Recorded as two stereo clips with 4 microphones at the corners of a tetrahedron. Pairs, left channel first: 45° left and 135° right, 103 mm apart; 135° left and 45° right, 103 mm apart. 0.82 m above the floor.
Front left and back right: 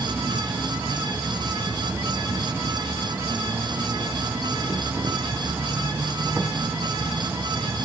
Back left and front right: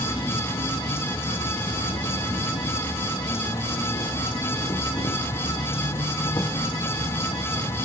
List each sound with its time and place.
0.0 s an insect: 160° left, 0.7 m